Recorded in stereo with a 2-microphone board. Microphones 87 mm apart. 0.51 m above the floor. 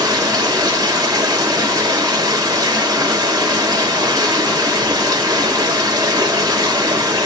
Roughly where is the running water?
Right.